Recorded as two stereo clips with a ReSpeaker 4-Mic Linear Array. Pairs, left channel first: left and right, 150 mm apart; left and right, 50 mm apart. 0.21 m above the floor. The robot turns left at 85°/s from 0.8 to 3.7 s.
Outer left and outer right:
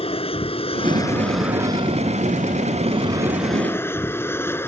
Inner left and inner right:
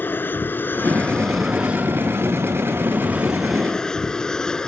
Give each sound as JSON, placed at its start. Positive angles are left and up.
{"t": 0.0, "sound": "an aircraft", "azimuth_deg": 50}